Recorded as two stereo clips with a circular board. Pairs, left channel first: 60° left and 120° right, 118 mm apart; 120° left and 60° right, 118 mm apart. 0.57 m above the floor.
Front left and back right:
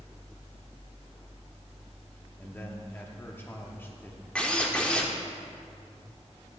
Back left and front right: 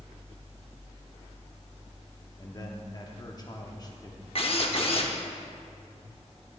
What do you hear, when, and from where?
2.4 s a man speaking: 115° left, 0.9 m
4.3 s a drill: 140° left, 0.9 m